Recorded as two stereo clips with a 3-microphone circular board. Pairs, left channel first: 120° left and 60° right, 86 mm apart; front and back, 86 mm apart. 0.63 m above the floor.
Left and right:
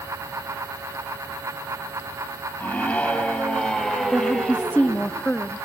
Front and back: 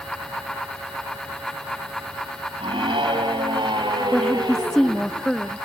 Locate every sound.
2.6 s a scream: 170° right, 4 m; by 5.1 s 135° right, 3 m
4.1 s a woman speaking: 75° left, 0.6 m